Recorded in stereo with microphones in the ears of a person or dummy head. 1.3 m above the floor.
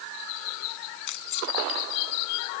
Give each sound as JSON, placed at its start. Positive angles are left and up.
{"t": 1.1, "sound": "keys jangling", "side_deg": 65}